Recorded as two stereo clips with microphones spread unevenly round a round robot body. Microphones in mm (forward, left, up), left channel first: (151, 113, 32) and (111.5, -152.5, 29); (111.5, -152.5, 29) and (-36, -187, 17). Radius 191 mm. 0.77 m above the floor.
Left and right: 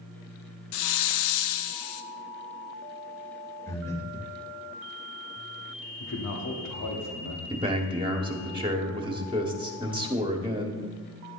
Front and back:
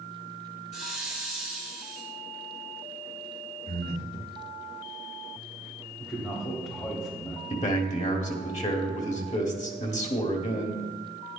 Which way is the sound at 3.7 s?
Straight ahead.